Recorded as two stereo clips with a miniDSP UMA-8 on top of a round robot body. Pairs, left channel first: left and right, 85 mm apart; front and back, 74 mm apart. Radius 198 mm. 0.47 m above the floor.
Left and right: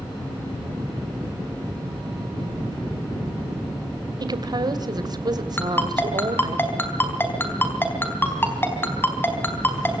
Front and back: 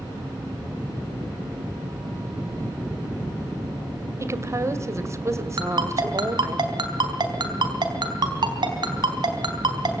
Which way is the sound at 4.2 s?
130° right.